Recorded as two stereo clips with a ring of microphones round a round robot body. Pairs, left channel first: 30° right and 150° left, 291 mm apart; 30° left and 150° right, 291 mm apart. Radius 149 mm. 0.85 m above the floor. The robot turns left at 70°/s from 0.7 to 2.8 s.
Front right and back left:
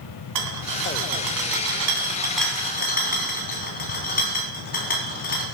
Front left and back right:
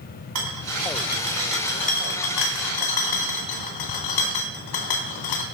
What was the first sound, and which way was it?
A rattle, straight behind.